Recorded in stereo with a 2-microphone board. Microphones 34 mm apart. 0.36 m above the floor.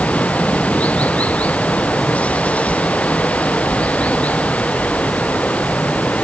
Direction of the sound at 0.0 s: 45° left (ahead or behind).